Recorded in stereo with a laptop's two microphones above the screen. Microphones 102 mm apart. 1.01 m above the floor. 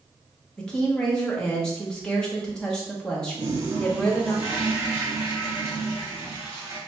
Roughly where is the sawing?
No sawing in this recording.